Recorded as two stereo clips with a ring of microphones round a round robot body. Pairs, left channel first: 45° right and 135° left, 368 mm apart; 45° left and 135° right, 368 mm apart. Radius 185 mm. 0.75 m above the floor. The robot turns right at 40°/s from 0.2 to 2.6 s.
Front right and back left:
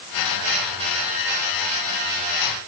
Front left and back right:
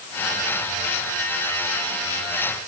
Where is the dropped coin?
No dropped coin in this recording.